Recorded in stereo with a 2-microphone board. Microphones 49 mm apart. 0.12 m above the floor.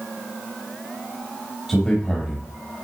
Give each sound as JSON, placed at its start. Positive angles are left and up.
{"t": 1.7, "sound": "a man speaking", "side_deg": 5, "distance_m": 3.5}